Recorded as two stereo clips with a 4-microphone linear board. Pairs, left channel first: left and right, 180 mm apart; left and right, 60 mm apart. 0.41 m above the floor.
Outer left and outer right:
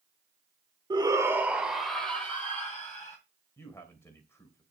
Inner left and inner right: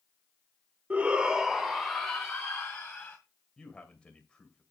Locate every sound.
0.9 s a shout: 25° right (ahead or behind), 0.9 m; by 3.2 s 15° left (ahead or behind), 2 m
3.6 s a man speaking: 15° left (ahead or behind), 2.5 m